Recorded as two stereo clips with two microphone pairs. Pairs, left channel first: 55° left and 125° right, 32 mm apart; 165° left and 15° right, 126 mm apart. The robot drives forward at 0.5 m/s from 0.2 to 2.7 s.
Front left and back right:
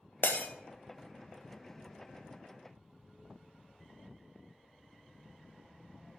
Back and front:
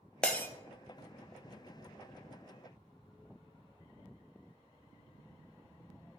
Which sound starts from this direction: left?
Breaking glass, at 0.2 s.